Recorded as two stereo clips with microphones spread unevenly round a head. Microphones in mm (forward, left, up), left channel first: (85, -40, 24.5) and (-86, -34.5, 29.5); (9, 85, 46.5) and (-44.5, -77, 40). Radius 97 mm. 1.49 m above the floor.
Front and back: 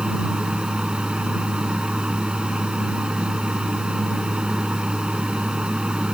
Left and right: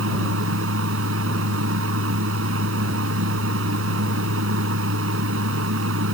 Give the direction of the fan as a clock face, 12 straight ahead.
3 o'clock.